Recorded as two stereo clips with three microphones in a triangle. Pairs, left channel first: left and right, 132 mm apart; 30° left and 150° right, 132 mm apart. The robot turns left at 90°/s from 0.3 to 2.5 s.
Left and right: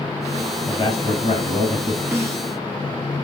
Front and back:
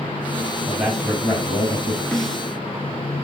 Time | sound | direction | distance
0.7 | a man speaking | 140° left | 3 m
2.1 | a snare drum | 45° right | 1.4 m